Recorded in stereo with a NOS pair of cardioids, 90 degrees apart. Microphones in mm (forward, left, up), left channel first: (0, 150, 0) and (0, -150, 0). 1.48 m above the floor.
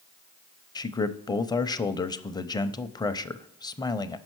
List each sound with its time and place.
0.8 s a man speaking: 15° left, 0.5 m